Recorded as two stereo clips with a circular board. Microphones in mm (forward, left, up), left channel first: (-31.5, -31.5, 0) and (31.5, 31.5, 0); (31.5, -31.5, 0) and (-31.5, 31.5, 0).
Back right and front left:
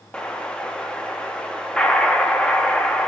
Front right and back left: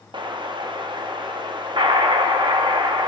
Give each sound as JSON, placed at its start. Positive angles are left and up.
{"t": 0.1, "sound": "an explosion", "azimuth_deg": 145, "distance_m": 0.8}